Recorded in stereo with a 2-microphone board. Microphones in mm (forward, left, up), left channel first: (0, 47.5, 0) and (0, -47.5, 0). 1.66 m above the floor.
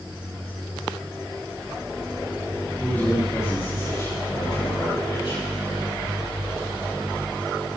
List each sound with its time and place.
2.8 s a man speaking: 20° left (ahead or behind), 4 m; by 5.5 s 75° left (ahead or behind), 4 m